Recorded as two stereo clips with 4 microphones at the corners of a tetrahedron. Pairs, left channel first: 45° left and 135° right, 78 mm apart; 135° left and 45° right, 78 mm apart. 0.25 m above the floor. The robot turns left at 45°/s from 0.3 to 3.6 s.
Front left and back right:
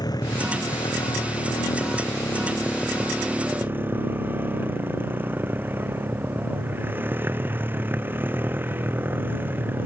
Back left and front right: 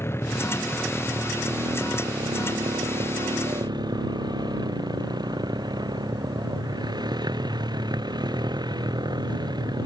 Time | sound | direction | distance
0.0 | a motorcycle | 75° left | ?